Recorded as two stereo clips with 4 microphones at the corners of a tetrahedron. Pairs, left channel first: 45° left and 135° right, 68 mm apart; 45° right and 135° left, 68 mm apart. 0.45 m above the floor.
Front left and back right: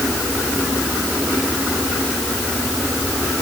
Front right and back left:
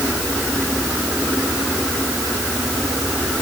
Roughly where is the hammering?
I don't hear hammering.